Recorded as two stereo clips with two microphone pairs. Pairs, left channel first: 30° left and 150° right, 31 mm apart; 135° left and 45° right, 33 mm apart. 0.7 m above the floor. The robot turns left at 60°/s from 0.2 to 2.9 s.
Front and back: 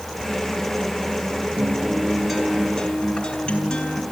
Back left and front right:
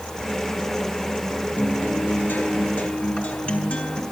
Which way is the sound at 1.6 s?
170° left.